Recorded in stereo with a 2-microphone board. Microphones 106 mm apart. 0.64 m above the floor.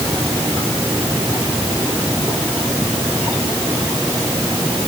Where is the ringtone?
I don't hear a ringtone.